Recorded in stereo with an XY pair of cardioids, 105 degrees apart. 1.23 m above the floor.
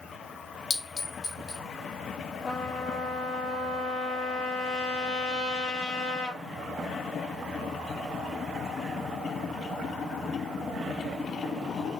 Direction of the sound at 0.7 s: 50° left.